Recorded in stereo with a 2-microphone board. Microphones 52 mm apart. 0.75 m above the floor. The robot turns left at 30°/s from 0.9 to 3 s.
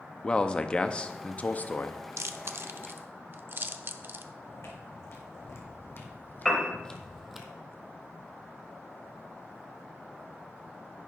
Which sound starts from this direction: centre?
A piano, at 6.5 s.